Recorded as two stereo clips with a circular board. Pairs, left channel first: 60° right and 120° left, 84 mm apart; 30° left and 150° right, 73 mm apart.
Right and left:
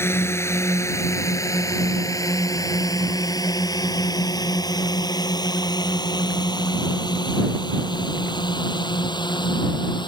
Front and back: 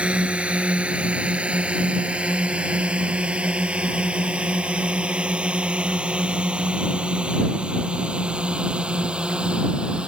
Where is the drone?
90° right; by 10.1 s 75° right.